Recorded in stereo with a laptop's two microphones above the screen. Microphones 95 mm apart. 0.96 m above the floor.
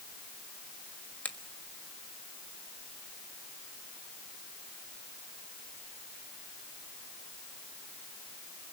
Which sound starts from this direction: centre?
A finger snap, at 1.2 s.